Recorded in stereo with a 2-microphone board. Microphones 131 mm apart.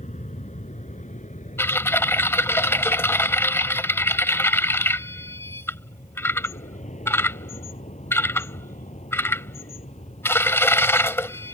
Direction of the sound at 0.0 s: 60° left (ahead or behind).